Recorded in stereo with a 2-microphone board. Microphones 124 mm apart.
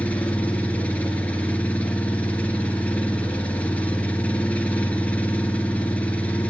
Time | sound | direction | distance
0.0 | an engine running | 10° left (ahead or behind) | 3 m